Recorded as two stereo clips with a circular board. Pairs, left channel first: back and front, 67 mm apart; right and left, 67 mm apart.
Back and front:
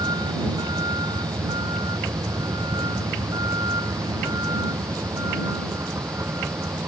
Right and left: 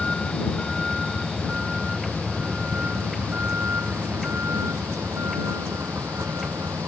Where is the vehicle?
10° right; by 6.9 s 45° left.